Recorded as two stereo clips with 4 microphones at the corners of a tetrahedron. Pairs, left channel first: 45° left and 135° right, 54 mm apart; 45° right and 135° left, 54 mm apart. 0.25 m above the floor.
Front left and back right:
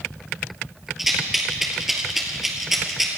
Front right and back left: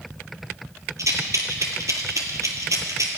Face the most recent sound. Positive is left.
turn(degrees=140)